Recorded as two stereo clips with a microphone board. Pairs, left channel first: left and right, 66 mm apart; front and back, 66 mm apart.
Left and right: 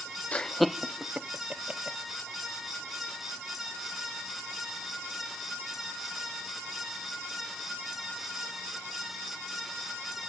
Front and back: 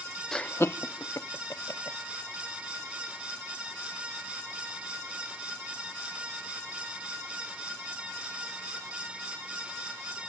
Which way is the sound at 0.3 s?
65° left.